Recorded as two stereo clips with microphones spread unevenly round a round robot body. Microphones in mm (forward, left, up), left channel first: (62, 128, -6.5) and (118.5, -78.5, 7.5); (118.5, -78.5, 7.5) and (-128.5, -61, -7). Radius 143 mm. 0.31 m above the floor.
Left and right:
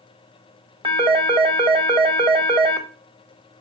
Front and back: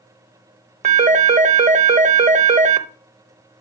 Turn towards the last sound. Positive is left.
turn(degrees=-140)